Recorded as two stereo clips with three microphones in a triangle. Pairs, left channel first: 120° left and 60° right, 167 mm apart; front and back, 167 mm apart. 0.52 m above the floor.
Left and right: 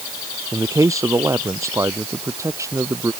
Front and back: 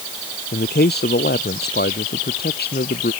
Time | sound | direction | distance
0.5 | a man speaking | 10° left | ?